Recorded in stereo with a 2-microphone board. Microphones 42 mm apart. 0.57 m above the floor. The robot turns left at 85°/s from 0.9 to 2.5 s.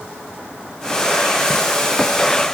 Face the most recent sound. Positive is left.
No sound to turn to.